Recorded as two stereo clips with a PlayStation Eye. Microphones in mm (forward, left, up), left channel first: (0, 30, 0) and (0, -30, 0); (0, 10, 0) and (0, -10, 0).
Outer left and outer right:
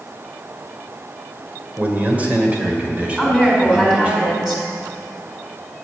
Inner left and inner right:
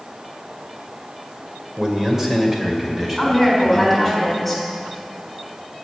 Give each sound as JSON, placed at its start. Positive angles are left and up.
{"t": 1.8, "sound": "a man speaking", "side_deg": -30, "distance_m": 2.5}
{"t": 3.2, "sound": "a woman speaking", "side_deg": -10, "distance_m": 5.5}